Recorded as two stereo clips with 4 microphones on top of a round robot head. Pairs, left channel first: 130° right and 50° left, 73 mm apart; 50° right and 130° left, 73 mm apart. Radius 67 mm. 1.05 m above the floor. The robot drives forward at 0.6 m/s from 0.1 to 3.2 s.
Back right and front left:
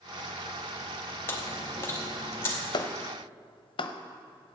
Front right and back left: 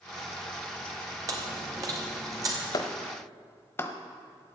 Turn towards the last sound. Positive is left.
turn(degrees=-115)